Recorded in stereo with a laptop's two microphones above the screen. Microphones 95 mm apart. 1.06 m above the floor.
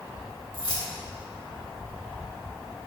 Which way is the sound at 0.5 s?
60° left (ahead or behind).